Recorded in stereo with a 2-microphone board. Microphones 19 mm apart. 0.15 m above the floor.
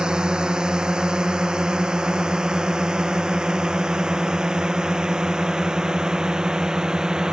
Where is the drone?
45° right (ahead or behind); by 7.3 s 40° right (ahead or behind).